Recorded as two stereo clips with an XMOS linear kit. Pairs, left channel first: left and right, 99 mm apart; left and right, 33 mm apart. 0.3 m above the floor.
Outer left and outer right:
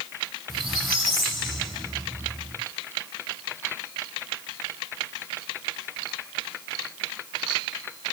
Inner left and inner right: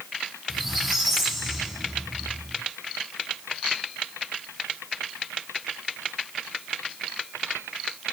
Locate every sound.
0.5 s a squeak: centre (ahead or behind), 3.5 m